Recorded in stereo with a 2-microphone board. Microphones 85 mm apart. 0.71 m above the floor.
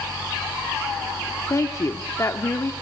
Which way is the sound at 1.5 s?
35° left (ahead or behind).